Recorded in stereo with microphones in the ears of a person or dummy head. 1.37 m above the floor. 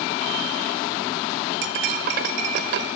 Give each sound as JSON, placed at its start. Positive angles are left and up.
{"t": 1.6, "sound": "cutlery clinking", "side_deg": -45, "distance_m": 0.6}